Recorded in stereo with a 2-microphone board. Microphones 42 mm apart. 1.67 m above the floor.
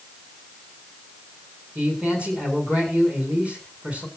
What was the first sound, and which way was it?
A man speaking, 25° right (ahead or behind).